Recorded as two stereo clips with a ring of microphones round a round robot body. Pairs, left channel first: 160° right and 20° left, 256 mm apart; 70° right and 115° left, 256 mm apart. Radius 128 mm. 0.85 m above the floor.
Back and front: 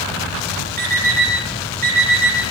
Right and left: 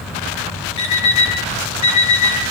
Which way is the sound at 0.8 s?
35° right.